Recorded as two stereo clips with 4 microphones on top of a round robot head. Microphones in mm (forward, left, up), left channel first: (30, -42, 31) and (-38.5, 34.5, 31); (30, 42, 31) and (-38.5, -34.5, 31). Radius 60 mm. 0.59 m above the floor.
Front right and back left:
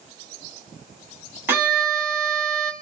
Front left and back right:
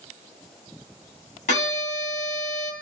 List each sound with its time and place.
1.5 s a violin: 60° left, 2 m